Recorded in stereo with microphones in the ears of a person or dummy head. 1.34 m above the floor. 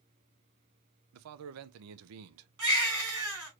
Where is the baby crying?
70° right (ahead or behind), 3 m.